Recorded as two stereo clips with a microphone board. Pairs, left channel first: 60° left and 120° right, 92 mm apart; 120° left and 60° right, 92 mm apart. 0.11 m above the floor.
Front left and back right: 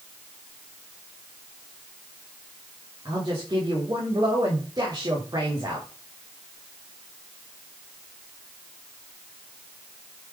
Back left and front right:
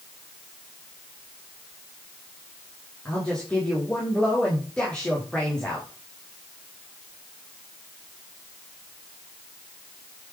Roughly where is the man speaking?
Behind.